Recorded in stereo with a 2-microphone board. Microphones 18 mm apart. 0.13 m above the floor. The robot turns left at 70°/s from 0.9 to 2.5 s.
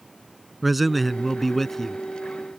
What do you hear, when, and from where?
0.6 s a man speaking: 5° right (ahead or behind); by 2.0 s 20° left (ahead or behind)